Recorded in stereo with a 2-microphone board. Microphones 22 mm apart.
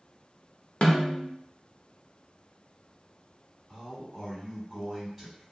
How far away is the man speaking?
About 1.8 m.